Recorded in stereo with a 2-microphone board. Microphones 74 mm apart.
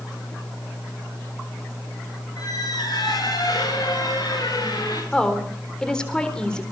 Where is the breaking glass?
I don't hear breaking glass.